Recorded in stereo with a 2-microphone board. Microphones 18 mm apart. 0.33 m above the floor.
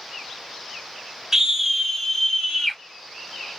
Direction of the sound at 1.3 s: 25° right (ahead or behind).